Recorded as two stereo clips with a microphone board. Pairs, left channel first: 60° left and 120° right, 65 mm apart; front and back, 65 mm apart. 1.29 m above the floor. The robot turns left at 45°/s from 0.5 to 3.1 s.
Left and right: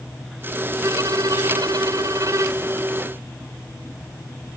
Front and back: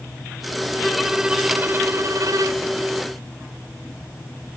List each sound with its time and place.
0.8 s a violin: 85° right; by 2.7 s 170° right